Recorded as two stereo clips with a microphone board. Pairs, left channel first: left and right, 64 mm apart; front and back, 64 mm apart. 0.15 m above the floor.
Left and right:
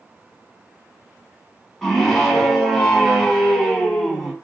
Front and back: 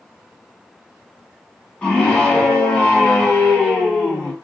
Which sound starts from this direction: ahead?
A scream, at 1.8 s.